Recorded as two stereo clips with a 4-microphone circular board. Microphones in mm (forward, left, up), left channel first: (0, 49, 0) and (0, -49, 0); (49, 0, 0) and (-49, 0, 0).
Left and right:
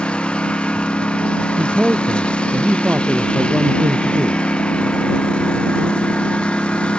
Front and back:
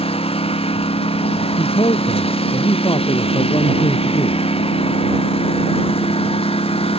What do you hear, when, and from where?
0.0 s a lawn mower: 10° left
1.6 s a man speaking: 15° right